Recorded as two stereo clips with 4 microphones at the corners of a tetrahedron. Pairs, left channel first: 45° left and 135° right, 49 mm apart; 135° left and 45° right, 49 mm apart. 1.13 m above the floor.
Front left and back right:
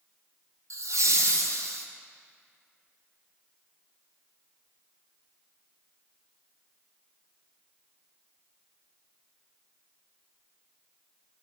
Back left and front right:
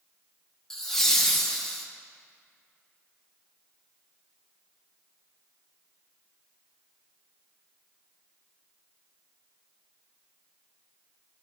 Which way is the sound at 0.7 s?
145° right.